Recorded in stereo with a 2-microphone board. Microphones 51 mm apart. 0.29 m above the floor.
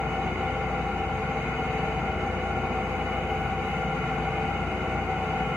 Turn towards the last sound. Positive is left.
turn(degrees=-65)  # may be behind; listen again after turning